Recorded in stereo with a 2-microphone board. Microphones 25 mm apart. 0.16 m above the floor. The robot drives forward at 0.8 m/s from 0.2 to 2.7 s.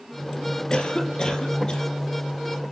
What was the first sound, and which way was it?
A cough, 40° left (ahead or behind).